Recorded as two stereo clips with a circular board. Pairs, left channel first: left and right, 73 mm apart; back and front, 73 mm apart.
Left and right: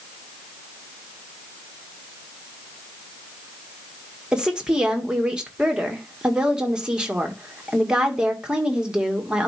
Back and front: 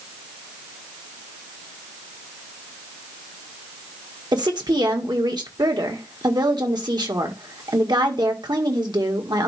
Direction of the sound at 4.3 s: 10° right.